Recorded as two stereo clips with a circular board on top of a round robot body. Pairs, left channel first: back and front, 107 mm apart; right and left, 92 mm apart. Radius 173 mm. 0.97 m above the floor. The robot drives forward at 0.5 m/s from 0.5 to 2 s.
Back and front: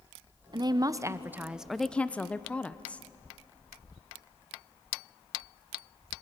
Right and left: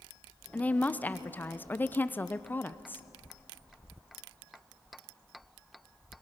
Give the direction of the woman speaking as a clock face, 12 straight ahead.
1 o'clock.